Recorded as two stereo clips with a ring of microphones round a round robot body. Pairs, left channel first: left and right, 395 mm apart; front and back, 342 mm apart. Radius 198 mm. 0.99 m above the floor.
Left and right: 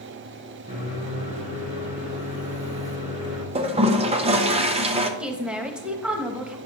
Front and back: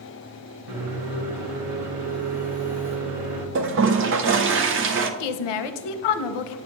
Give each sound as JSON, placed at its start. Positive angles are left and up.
{"t": 0.7, "sound": "a microwave", "azimuth_deg": -165, "distance_m": 1.6}
{"t": 3.5, "sound": "a toilet flushing", "azimuth_deg": -155, "distance_m": 0.5}
{"t": 5.2, "sound": "a woman speaking", "azimuth_deg": 0, "distance_m": 0.7}